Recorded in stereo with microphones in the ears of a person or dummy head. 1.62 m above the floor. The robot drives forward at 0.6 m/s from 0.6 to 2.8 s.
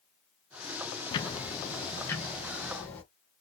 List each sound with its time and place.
1.1 s ticking: 25° left (ahead or behind), 0.6 m; by 3.0 s 10° left (ahead or behind), 1.6 m